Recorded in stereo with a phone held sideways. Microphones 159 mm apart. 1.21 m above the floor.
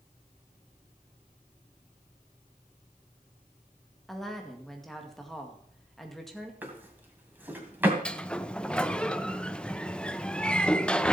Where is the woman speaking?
Centre (ahead or behind), 2.0 m.